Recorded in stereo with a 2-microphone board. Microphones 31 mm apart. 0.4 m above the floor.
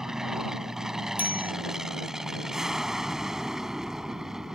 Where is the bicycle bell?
70° right (ahead or behind).